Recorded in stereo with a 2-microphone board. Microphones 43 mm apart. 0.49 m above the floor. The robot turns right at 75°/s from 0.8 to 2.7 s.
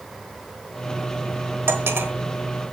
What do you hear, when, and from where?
1.7 s cutlery clinking: 105° right, 1.2 m; by 2.1 s 70° right, 1.2 m